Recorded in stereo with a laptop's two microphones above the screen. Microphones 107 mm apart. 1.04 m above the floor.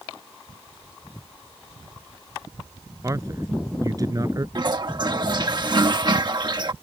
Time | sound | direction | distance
3.0 | a man speaking | 30° right (ahead or behind) | ?
4.5 | a toilet flushing | 45° right (ahead or behind) | ?